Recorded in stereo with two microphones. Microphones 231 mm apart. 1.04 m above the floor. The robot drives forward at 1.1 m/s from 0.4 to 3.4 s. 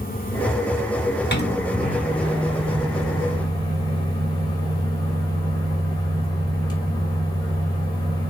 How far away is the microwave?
About 1.3 m.